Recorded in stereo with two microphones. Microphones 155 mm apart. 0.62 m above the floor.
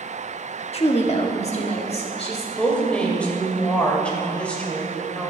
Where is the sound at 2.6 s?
10° left (ahead or behind), 2 m.